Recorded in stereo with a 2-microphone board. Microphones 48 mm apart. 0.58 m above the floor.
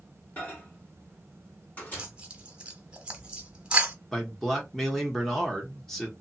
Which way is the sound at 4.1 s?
10° left (ahead or behind).